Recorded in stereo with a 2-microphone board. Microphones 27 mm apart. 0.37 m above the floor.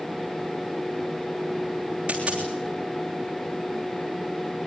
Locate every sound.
2.1 s a dropped coin: 45° right (ahead or behind), 3 m